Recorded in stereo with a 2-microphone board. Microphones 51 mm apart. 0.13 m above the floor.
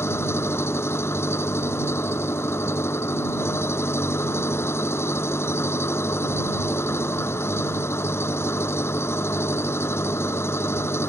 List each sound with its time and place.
0.0 s an engine running: 55° left (ahead or behind)